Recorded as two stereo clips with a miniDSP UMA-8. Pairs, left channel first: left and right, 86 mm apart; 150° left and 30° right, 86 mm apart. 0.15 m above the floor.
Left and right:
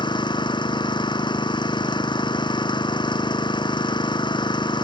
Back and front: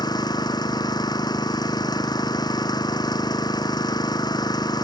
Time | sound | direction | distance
0.0 | an engine running | 115° left | ?